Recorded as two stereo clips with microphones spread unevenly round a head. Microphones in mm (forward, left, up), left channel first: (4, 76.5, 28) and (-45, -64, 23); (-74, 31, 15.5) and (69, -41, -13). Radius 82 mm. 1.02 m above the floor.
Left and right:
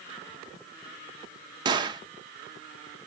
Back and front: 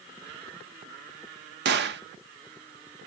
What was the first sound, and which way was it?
A gunshot, 45° right.